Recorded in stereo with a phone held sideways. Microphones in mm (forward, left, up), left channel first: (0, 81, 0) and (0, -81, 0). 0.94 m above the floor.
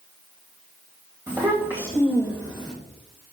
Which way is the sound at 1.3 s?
20° right (ahead or behind).